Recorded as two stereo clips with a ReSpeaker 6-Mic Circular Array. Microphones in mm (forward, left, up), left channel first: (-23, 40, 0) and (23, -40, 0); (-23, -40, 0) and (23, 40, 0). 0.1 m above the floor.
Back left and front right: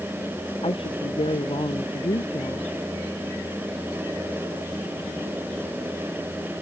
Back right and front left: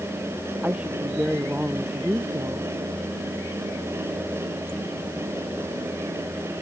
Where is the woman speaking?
135° left.